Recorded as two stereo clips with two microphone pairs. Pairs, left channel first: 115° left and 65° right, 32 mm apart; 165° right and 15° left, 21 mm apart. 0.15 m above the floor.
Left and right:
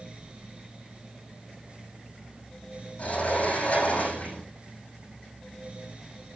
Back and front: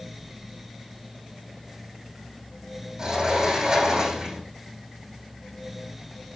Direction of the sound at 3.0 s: 65° left.